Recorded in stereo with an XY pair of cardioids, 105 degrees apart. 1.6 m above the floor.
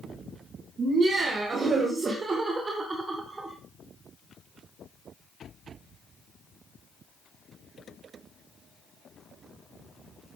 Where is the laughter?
45° right, 3 m; by 3.6 s 15° right, 1.4 m.